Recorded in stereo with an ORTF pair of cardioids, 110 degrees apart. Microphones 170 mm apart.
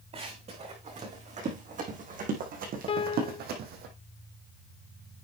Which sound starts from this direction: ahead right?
Running footsteps, at 0.1 s.